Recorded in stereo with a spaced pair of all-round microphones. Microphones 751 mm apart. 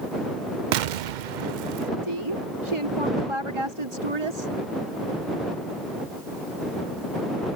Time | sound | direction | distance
0.7 | an explosion | 80° right | ?
2.0 | a woman speaking | 40° right (ahead or behind) | ?